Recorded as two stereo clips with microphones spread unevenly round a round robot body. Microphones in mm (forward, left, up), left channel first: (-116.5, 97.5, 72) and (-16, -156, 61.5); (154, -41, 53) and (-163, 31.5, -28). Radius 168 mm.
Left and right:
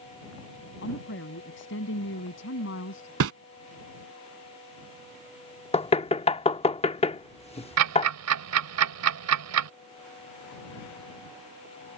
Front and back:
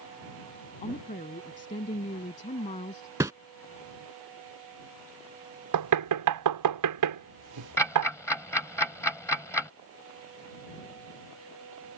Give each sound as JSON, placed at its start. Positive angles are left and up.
{"t": 0.8, "sound": "a woman speaking", "azimuth_deg": 55}
{"t": 3.2, "sound": "a whoosh", "azimuth_deg": -105}
{"t": 5.7, "sound": "knocking", "azimuth_deg": 180}
{"t": 7.8, "sound": "ticking", "azimuth_deg": -95}